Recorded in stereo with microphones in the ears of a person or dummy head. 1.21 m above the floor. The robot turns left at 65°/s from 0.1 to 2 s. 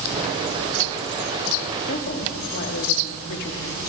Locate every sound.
1.9 s a woman speaking: 50° left (ahead or behind), 3 m; by 3.8 s 55° left (ahead or behind), 3 m